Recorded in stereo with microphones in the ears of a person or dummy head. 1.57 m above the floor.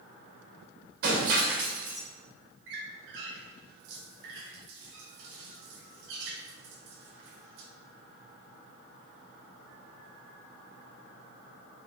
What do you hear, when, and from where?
1.0 s breaking glass: 65° right (ahead or behind), 2.5 m
2.7 s a squeak: 60° right (ahead or behind), 1.4 m